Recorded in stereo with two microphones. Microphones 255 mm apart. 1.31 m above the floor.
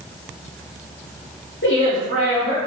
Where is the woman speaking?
50° left (ahead or behind), 0.7 m.